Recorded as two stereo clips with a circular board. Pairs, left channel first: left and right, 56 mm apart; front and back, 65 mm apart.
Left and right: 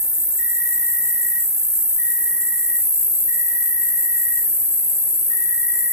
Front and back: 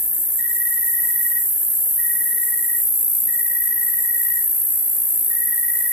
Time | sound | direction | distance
0.0 | an insect | 65° right | 0.8 m